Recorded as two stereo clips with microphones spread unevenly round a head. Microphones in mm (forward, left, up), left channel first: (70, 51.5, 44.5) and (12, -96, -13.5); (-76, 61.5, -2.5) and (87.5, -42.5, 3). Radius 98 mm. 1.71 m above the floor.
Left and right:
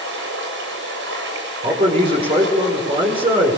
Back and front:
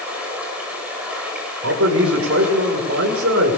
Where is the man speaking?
50° right, 5.5 m.